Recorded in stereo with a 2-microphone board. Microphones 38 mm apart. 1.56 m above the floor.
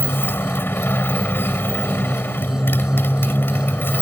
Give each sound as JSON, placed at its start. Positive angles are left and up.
{"t": 0.0, "sound": "a motorcycle", "side_deg": 70}